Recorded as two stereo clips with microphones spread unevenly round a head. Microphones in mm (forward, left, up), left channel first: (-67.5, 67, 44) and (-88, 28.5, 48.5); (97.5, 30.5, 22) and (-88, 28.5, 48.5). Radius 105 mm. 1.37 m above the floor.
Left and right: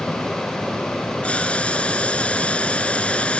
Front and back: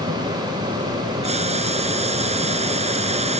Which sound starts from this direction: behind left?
Boiling, at 1.2 s.